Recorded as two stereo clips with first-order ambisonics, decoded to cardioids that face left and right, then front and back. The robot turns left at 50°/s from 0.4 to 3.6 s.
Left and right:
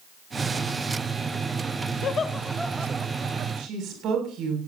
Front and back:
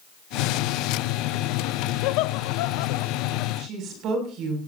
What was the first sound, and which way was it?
Laughter, 30° left.